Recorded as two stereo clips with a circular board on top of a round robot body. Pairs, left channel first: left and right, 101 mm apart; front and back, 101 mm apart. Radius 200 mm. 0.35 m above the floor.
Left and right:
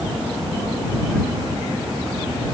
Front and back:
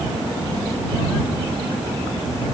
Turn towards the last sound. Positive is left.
No sound to turn to.